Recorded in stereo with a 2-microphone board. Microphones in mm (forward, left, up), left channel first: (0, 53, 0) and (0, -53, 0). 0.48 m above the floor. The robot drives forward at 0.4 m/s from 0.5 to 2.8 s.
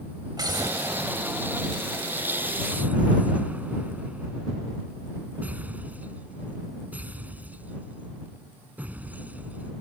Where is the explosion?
40° right (ahead or behind); by 9.7 s 15° right (ahead or behind).